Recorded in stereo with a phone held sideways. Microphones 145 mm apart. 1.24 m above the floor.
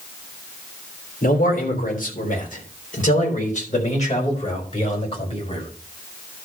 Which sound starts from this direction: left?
A man speaking, at 1.2 s.